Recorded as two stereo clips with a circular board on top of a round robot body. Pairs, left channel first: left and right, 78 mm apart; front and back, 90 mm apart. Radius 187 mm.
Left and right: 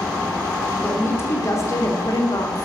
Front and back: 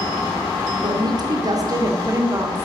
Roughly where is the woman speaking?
Behind left.